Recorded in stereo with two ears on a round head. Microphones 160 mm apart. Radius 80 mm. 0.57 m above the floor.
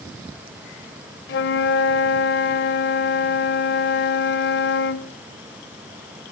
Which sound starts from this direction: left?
A flute, at 1.3 s.